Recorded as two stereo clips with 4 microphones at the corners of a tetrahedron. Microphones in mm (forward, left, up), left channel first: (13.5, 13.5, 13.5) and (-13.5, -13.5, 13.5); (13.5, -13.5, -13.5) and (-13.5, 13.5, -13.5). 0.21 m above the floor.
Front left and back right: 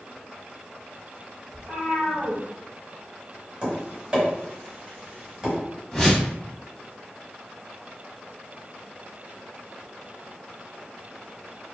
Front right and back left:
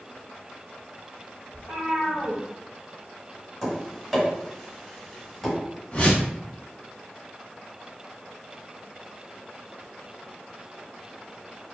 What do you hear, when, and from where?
1.5 s a cat meowing: 60° right, 1.3 m
3.6 s tapping: 135° right, 1.4 m
5.9 s a whoosh: 20° right, 0.8 m